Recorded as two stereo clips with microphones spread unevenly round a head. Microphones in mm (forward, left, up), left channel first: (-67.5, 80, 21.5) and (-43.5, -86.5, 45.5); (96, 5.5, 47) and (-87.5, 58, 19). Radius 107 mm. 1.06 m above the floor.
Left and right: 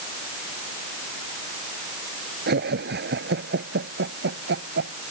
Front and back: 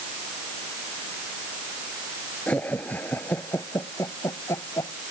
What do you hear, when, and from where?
2.5 s laughter: 100° right; by 5.0 s 95° right